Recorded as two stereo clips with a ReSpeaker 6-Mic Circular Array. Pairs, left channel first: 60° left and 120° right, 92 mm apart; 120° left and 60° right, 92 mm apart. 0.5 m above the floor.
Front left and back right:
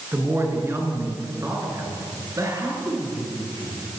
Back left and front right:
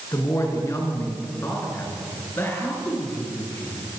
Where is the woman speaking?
175° left, 6 m; by 3.8 s 170° right, 9 m.